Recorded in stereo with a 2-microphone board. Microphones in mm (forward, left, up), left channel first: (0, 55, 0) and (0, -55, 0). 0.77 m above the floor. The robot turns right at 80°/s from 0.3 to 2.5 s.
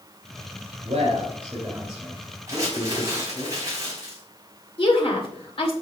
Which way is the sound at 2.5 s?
30° right (ahead or behind).